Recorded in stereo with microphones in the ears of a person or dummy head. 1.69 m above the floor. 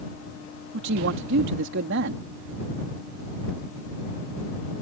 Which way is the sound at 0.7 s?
65° right (ahead or behind).